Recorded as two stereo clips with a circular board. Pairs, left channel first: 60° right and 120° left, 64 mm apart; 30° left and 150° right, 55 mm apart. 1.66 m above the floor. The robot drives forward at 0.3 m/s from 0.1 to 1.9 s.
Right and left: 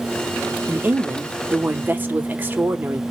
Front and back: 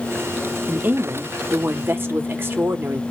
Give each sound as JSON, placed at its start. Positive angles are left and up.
{"t": 0.7, "sound": "a woman speaking", "azimuth_deg": 170, "distance_m": 0.6}